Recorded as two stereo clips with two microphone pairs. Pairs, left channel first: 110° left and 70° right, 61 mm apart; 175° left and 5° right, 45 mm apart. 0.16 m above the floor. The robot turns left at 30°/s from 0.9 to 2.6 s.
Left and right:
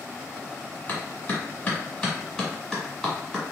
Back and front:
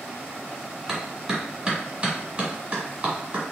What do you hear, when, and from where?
0.9 s a clap: 80° left, 1.5 m; by 3.5 s 30° left, 1.5 m